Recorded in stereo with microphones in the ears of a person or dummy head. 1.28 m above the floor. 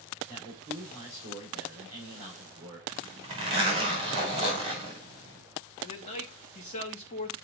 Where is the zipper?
30° right (ahead or behind), 2.5 m.